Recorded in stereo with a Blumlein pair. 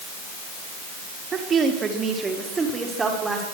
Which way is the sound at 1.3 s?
25° right.